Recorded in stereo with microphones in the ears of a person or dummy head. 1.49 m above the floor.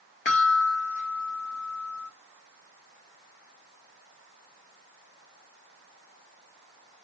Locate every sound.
0.2 s a chime: 40° left (ahead or behind), 0.9 m